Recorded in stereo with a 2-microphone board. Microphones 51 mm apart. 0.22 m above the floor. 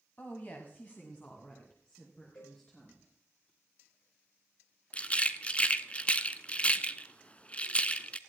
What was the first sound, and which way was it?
A woman speaking, 35° left (ahead or behind).